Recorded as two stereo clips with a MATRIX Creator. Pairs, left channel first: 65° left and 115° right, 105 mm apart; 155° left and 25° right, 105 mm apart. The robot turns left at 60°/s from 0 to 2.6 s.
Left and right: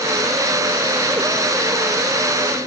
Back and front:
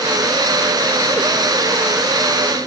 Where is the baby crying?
No baby crying in this recording.